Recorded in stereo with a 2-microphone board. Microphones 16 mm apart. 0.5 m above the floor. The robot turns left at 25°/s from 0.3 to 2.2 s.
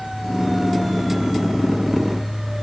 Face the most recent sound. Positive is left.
No sound to turn to.